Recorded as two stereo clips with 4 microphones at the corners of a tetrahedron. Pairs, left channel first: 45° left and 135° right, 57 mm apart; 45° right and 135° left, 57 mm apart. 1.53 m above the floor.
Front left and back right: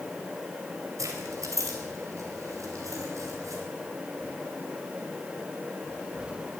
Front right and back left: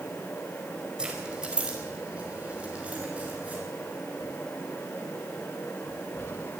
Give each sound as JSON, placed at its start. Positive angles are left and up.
{"t": 1.0, "sound": "keys jangling", "azimuth_deg": -150, "distance_m": 4.5}